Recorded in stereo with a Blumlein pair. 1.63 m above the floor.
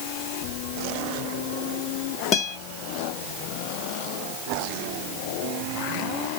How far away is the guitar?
About 0.8 m.